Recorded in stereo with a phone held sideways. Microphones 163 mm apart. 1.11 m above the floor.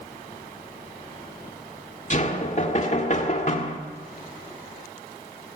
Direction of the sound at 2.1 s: 50° left (ahead or behind).